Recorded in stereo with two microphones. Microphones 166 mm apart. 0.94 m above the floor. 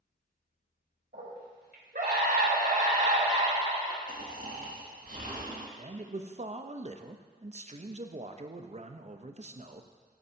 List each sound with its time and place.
1.1 s a scream: 80° right, 3.5 m; by 4.0 s 25° right (ahead or behind), 2.0 m
4.1 s snoring: 60° right (ahead or behind), 1.8 m
5.8 s a man speaking: 45° right (ahead or behind), 0.5 m